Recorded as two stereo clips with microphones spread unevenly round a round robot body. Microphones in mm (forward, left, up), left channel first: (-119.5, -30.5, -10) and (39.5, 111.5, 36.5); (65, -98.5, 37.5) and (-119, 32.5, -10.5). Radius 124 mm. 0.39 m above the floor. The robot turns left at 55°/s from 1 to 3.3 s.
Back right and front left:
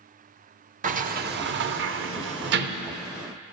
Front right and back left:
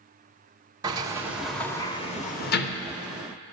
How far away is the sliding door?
About 0.6 m.